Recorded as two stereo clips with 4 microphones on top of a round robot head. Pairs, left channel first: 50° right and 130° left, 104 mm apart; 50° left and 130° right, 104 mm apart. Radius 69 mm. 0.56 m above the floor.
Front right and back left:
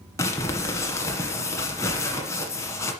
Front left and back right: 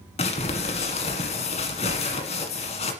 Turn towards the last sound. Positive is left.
turn(degrees=15)